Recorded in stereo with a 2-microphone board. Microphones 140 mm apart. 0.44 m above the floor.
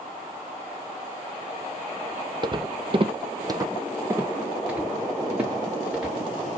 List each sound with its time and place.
2.4 s footsteps: 30° right (ahead or behind), 0.6 m; by 6.2 s 5° right (ahead or behind), 2.5 m